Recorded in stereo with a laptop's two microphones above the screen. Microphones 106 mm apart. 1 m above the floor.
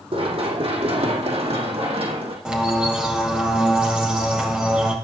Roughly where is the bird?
Centre.